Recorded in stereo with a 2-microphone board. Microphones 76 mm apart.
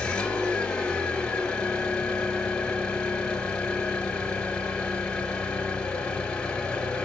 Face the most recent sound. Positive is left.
turn(degrees=10)  # may be behind; listen again after turning